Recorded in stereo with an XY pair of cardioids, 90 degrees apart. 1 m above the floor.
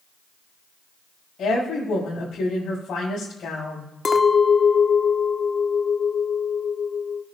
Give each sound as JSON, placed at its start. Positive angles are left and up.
{"t": 1.4, "sound": "a woman speaking", "azimuth_deg": 65, "distance_m": 4.5}
{"t": 4.0, "sound": "a clink", "azimuth_deg": 40, "distance_m": 1.1}